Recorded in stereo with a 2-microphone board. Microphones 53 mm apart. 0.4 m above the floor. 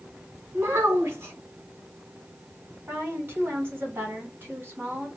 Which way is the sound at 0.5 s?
50° right (ahead or behind).